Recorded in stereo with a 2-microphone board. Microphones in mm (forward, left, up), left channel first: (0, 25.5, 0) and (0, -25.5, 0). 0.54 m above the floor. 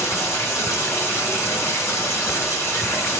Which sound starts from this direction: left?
Running water, at 0.0 s.